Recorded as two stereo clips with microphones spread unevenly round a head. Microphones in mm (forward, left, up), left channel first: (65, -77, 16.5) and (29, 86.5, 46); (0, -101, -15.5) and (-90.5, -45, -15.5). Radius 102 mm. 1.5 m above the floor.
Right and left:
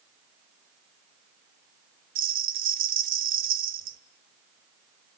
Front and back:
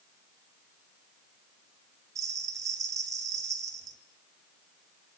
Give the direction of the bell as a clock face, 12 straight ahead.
9 o'clock.